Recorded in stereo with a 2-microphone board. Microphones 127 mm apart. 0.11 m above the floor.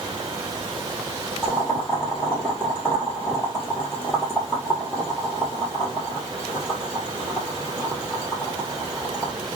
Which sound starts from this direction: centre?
Boiling, at 1.4 s.